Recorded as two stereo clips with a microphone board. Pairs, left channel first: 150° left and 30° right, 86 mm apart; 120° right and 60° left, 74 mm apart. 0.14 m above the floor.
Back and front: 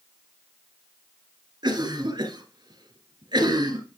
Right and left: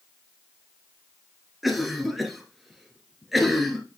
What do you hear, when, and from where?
1.6 s a cough: 30° right, 2 m